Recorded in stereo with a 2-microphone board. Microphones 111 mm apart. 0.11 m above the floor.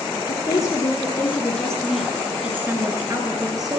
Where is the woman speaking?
40° left (ahead or behind), 1.8 m; by 3.8 s 40° right (ahead or behind), 2 m.